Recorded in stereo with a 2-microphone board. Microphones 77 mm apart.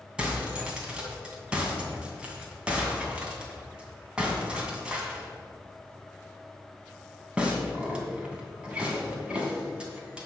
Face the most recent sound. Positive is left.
turn(degrees=-15)  # may be behind; listen again after turning